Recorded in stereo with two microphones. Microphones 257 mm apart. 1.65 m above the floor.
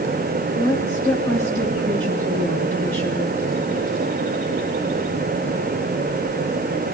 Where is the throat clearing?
No throat clearing in this recording.